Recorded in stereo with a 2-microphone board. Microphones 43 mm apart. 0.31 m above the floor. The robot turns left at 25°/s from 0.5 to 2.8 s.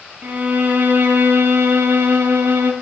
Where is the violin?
50° right, 1.0 m; by 2.7 s 105° right, 1.0 m.